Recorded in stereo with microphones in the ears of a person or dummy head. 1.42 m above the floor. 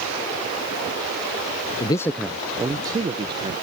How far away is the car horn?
No car horn in this recording.